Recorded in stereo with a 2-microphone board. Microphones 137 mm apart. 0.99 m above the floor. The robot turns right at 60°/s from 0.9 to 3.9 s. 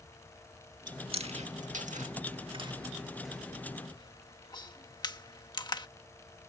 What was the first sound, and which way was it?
Chewing, 30° right (ahead or behind).